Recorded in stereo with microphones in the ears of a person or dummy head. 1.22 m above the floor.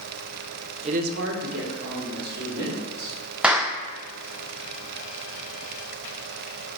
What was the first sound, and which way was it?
A woman speaking, 35° right (ahead or behind).